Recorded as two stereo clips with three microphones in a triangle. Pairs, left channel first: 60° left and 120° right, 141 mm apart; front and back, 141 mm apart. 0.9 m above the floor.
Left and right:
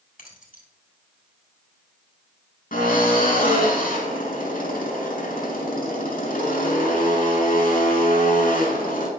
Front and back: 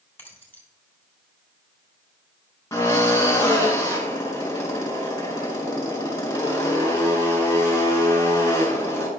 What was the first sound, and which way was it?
Keys jangling, 75° left.